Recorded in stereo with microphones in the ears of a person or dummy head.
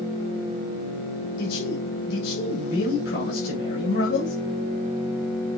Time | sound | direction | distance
1.4 | a man speaking | 65° left (ahead or behind) | 3 m